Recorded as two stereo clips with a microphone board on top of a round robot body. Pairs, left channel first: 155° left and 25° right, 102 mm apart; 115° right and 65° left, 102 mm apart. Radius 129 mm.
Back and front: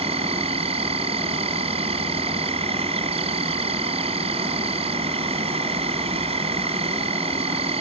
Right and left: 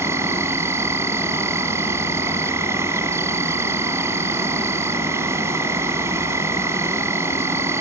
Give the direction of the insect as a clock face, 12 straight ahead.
12 o'clock.